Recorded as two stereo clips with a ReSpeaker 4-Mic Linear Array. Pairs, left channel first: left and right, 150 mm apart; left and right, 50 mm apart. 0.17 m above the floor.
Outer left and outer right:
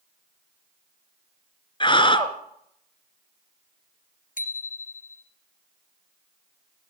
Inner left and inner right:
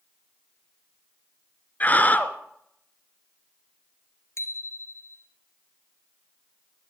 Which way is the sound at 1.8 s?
35° left (ahead or behind).